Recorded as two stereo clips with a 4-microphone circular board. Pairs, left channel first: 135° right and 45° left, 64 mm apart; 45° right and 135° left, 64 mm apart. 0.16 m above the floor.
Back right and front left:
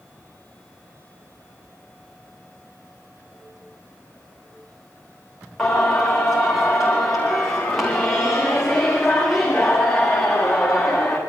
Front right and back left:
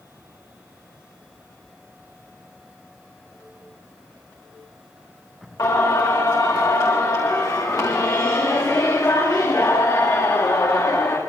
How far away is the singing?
About 8.5 m.